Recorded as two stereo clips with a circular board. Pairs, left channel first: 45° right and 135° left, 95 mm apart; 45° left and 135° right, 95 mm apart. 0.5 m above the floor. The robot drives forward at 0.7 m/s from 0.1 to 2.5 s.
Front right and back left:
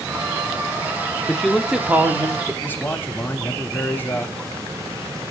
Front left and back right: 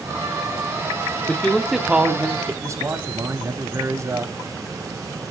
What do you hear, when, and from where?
1.3 s a man speaking: 10° left, 0.7 m; by 2.5 s 175° left, 0.9 m
2.6 s a man speaking: 100° right, 0.8 m